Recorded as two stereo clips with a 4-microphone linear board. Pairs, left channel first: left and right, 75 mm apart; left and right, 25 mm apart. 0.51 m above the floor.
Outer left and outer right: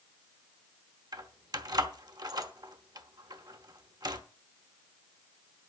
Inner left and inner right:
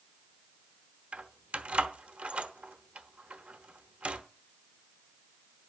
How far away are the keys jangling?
About 1.0 m.